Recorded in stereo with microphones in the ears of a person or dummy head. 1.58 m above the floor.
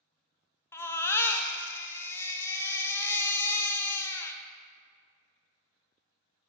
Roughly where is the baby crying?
Centre.